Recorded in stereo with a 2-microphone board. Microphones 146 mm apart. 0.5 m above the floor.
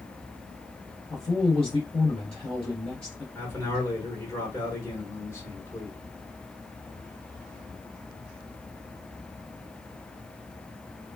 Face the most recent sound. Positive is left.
turn(degrees=20)  # may be behind; listen again after turning